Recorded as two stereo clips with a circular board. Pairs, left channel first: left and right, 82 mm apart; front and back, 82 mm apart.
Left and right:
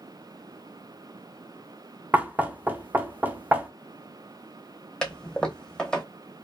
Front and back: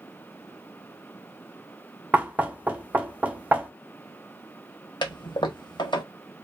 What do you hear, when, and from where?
2.1 s knocking: 130° right, 0.6 m
5.0 s a toilet flushing: 10° left, 0.8 m